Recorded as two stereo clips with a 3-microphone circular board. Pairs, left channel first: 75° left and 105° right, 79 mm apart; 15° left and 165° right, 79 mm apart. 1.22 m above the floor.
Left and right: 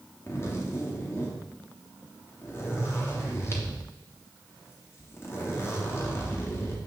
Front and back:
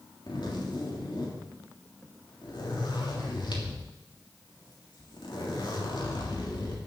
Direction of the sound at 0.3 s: 20° left.